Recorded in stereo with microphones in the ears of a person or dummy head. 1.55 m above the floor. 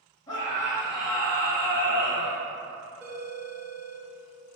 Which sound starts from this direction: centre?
A phone ringing, at 3.0 s.